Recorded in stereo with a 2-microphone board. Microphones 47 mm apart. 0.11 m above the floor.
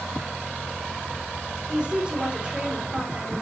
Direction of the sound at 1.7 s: 25° right (ahead or behind).